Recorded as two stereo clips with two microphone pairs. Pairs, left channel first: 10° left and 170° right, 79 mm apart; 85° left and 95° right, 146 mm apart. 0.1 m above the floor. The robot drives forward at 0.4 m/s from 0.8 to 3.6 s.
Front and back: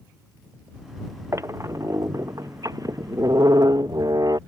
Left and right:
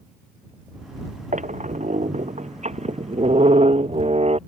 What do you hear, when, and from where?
1.3 s a squeak: 120° right; by 4.4 s 135° right